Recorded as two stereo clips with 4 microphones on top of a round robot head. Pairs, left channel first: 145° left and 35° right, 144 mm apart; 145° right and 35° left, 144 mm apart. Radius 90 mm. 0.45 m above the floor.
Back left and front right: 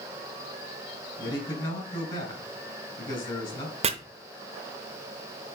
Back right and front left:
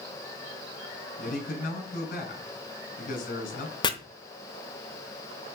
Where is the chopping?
85° right, 0.8 m.